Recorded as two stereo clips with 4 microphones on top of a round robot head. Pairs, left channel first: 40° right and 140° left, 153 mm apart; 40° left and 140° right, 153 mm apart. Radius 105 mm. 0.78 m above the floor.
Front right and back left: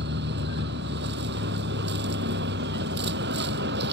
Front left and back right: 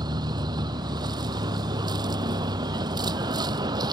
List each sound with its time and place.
0.0 s a vehicle: 150° left